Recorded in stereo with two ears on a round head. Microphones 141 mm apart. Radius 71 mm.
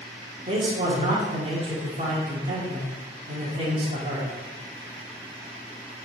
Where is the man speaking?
40° right (ahead or behind), 2 m.